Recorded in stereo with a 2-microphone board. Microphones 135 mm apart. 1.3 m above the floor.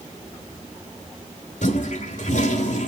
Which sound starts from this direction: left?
A toilet flushing, at 1.6 s.